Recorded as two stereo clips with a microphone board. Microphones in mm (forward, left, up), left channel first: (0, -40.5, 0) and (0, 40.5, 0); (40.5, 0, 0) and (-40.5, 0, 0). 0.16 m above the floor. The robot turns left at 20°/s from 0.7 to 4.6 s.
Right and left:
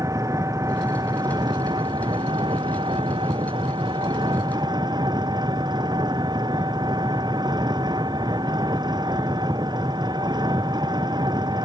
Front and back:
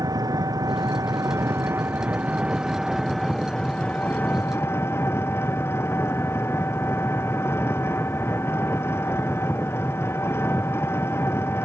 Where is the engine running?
140° left; by 11.6 s 60° left.